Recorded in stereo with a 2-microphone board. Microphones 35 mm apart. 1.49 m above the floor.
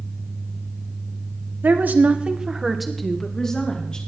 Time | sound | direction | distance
1.6 | a woman speaking | 70° right (ahead or behind) | 1.3 m